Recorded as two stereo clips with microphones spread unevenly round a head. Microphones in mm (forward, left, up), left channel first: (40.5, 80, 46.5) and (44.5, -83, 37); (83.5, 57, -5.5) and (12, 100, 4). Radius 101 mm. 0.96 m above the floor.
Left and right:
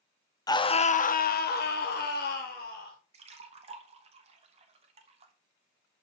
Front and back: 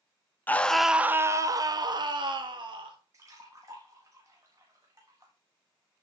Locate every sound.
0.5 s a scream: 25° left, 1.0 m; by 3.0 s 130° left, 2.5 m
3.1 s a splash: 140° right, 1.1 m